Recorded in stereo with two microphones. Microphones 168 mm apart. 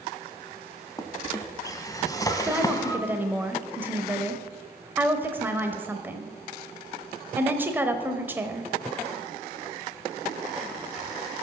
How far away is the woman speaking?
About 0.9 m.